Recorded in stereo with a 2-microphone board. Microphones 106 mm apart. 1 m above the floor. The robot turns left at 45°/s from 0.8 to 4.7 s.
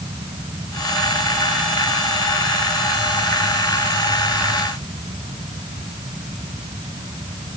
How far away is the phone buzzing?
I don't hear a phone buzzing.